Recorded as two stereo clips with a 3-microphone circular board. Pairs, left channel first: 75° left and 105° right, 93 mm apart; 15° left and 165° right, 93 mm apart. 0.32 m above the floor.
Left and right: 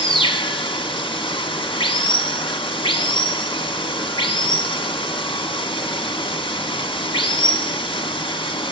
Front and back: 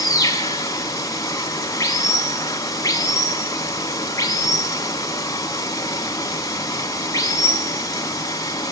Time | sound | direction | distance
0.0 | running water | 65° left | 1.4 m